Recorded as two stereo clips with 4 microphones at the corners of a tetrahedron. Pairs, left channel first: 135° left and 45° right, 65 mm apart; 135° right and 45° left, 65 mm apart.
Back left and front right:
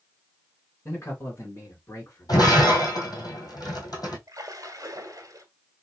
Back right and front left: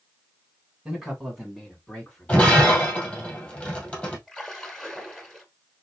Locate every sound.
0.8 s a man speaking: 130° left, 2 m; by 2.8 s 175° left, 2.5 m
2.3 s breaking glass: 155° left, 2 m
4.3 s a splash: 50° right, 1.3 m